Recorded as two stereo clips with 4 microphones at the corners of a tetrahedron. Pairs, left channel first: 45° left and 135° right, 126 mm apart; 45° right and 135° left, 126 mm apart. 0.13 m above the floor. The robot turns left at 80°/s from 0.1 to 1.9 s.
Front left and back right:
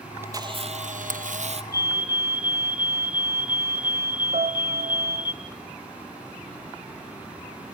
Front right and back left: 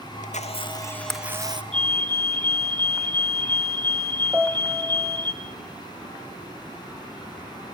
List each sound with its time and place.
0.2 s a camera shutter: 60° right, 1.3 m; by 1.6 s 175° right, 1.3 m
1.7 s a fire alarm: 105° left, 4 m; by 5.3 s 90° left, 4 m
4.3 s a piano: 150° right, 1.5 m